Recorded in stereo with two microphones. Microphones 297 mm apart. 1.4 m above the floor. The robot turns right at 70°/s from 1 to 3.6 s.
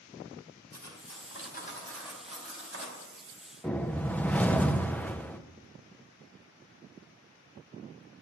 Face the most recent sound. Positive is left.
turn(degrees=5)  # may be behind; listen again after turning